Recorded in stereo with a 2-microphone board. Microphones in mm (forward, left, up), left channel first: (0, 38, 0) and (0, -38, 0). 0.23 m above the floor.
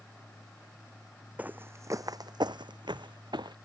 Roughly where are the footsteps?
Right.